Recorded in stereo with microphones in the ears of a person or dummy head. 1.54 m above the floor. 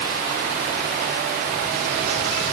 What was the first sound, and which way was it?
Only background noise.